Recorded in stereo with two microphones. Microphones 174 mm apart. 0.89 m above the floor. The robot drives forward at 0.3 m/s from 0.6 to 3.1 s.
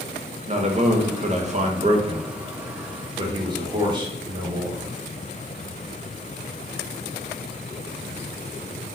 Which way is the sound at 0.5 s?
40° right (ahead or behind).